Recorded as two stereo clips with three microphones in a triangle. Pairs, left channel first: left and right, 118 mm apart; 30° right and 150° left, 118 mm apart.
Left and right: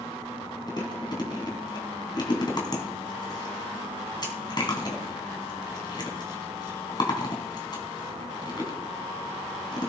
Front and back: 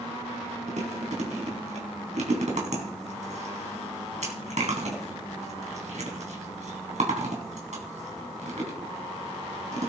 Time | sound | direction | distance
0.7 | chewing | 145° left | 3 m